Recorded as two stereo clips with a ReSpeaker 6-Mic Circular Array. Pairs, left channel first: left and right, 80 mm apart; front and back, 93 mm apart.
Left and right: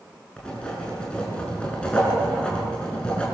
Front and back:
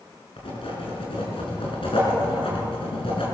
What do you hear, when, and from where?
0.4 s writing: 15° left, 6 m